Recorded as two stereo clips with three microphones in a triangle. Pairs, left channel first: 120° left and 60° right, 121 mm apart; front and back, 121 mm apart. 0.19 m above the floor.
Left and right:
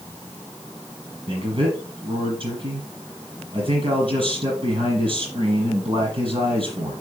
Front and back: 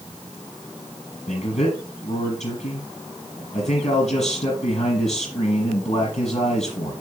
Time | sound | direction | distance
1.3 | a man speaking | 20° right | 5.5 m